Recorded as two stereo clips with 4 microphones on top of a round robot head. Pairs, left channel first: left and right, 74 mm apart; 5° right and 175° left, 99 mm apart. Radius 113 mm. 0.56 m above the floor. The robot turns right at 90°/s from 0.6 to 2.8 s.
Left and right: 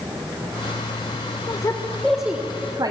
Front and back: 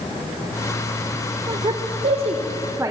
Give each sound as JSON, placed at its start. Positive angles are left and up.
{"t": 1.5, "sound": "a woman speaking", "azimuth_deg": 130, "distance_m": 2.0}